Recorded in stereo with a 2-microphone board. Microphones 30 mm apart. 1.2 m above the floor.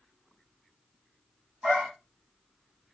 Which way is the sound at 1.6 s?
45° right (ahead or behind).